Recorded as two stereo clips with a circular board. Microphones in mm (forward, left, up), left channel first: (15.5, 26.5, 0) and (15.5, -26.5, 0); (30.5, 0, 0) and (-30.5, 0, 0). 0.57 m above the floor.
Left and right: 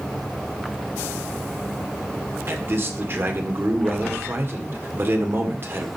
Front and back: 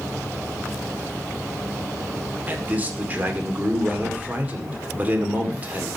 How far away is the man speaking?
About 1.8 m.